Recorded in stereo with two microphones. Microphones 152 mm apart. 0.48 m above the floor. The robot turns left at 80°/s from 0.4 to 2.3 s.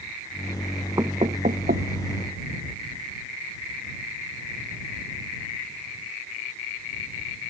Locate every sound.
1.0 s knocking: 25° right (ahead or behind); by 1.9 s 80° right